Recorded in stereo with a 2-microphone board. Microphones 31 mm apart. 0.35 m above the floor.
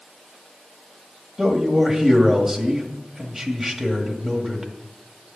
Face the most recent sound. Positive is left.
turn(degrees=-5)  # may be behind; listen again after turning